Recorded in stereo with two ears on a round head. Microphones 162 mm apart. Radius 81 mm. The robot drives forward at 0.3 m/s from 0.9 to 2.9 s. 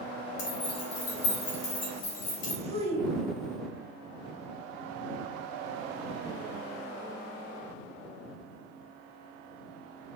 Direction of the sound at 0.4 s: 60° left (ahead or behind).